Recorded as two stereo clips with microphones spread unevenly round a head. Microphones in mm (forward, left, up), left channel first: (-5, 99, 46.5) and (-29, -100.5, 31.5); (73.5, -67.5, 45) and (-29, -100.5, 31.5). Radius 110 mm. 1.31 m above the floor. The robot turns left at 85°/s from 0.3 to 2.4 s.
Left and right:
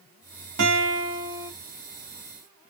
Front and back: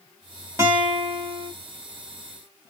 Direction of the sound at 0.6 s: 95° right.